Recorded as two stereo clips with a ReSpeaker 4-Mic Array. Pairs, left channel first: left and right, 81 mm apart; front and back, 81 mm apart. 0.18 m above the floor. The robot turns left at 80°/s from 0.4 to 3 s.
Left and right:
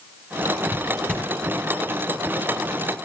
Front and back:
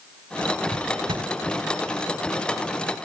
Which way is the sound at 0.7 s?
155° right.